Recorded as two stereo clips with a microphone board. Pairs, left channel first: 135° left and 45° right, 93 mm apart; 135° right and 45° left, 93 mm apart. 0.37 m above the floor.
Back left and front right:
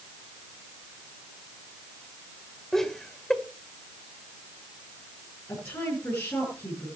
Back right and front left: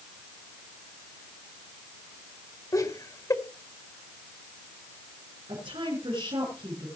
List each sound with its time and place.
2.7 s laughter: 140° right, 1.6 m
5.5 s a woman speaking: 75° left, 6 m